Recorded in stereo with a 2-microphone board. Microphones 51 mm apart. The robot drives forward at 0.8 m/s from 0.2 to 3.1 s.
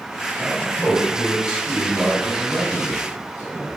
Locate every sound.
0.4 s a man speaking: 15° right (ahead or behind), 4 m; by 3.7 s 30° right (ahead or behind), 2.5 m